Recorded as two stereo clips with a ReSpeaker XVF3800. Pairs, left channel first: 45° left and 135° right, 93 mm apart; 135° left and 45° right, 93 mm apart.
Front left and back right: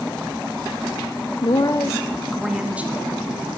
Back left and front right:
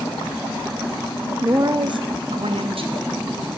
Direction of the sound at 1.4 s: 15° left.